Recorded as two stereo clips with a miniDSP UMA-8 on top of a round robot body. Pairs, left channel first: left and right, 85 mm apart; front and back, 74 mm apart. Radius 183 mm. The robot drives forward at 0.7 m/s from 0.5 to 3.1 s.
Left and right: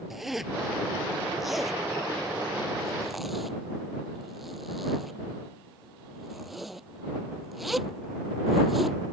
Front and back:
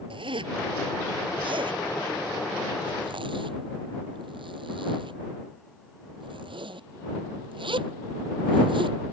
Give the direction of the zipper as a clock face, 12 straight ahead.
6 o'clock.